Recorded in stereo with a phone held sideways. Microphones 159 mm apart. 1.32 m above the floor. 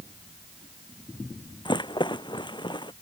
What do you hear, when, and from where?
1.6 s a rattle: 30° left (ahead or behind)